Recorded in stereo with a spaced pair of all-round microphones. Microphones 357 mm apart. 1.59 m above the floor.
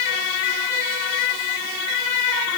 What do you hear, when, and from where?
Only background noise.